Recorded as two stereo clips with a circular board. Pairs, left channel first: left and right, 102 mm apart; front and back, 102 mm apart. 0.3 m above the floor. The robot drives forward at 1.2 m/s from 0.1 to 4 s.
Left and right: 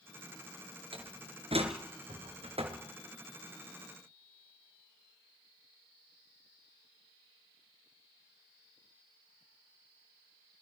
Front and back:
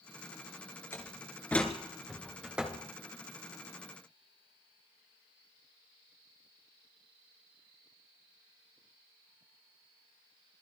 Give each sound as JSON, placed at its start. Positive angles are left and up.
{"t": 0.9, "sound": "a door slam", "azimuth_deg": -65, "distance_m": 3.5}